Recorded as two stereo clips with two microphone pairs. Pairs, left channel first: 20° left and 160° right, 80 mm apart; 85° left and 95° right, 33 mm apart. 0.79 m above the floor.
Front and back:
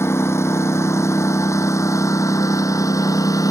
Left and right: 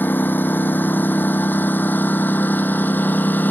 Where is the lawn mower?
80° left; by 3.5 s 65° left.